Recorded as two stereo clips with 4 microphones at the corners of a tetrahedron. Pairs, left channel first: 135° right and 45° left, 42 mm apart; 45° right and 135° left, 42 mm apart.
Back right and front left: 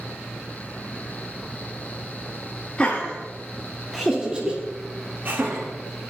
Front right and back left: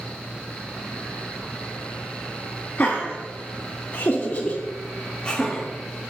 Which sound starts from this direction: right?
Laughter, at 2.8 s.